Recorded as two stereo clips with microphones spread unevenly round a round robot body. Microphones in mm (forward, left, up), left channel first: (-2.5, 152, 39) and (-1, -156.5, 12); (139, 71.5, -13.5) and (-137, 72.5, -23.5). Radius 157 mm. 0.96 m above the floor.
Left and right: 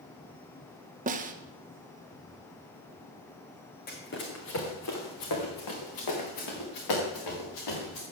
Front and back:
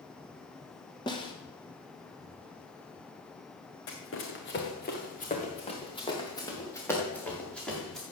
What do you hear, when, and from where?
1.1 s a snare drum: 65° right, 0.9 m
3.9 s running footsteps: 30° left, 3 m; by 8.0 s 90° left, 6 m